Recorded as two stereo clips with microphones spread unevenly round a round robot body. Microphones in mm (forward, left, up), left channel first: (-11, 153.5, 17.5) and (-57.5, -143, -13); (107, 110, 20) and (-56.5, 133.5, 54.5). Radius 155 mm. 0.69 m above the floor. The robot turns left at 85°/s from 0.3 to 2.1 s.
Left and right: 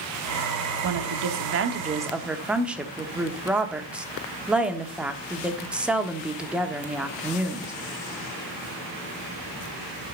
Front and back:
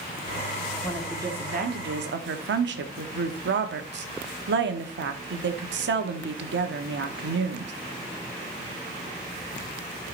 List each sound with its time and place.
0.8 s a woman speaking: 75° right, 1.2 m; by 7.7 s 175° left, 1.2 m